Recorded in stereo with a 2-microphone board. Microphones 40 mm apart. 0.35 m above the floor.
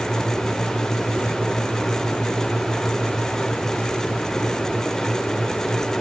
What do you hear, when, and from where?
Only background noise.